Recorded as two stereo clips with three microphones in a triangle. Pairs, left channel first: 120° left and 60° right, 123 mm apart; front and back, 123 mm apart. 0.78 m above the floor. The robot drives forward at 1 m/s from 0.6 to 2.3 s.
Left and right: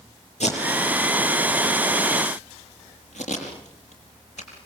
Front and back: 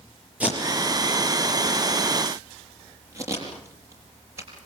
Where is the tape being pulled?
100° left, 7 m; by 4.7 s 115° left, 7.5 m.